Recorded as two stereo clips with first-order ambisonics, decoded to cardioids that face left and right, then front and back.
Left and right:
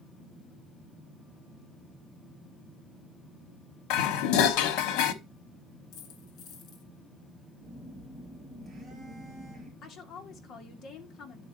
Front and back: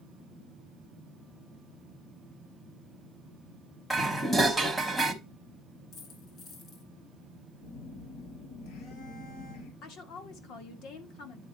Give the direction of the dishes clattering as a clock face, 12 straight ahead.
9 o'clock.